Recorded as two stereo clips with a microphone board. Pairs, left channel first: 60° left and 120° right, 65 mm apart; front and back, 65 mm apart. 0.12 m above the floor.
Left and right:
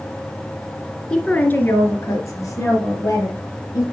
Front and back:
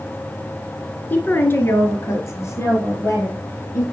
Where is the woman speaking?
5° right, 1.2 m; by 3.8 s 40° left, 3.5 m.